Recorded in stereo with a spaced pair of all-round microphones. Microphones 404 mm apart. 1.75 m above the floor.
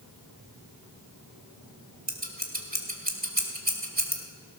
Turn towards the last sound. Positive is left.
turn(degrees=-20)  # may be behind; listen again after turning